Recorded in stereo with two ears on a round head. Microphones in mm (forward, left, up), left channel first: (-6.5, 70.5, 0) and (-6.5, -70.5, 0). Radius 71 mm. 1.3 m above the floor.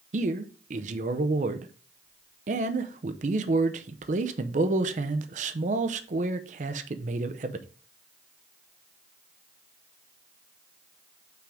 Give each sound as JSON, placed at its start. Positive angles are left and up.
{"t": 0.1, "sound": "a man speaking", "side_deg": -50, "distance_m": 0.7}